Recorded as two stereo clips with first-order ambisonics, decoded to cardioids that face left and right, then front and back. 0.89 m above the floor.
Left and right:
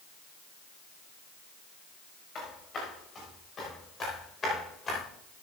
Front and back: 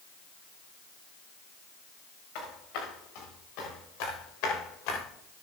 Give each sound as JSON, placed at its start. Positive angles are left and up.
{"t": 2.4, "sound": "footsteps", "azimuth_deg": 25, "distance_m": 5.5}